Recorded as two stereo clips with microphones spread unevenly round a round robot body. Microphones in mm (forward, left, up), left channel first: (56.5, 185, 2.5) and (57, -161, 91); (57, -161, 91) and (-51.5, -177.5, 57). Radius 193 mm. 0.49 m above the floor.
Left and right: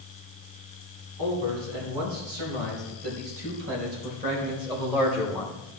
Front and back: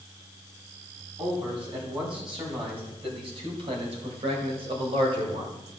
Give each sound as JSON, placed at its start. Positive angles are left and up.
{"t": 1.2, "sound": "a man speaking", "azimuth_deg": -130, "distance_m": 4.5}